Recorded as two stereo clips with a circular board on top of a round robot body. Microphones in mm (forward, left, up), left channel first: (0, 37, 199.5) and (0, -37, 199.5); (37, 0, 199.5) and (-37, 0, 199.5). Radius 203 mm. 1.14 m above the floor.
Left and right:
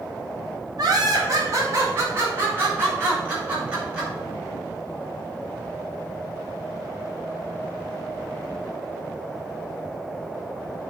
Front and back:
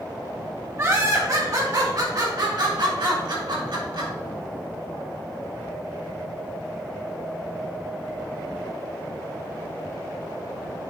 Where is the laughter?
125° right, 2.5 m; by 4.1 s 165° right, 5.5 m.